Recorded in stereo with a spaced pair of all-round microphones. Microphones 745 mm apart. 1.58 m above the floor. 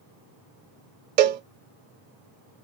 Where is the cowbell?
85° right, 0.6 m.